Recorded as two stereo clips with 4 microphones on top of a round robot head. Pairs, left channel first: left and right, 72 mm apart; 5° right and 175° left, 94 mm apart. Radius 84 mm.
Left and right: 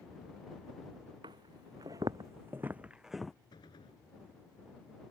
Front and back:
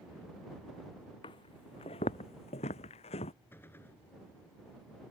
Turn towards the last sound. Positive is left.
turn(degrees=60)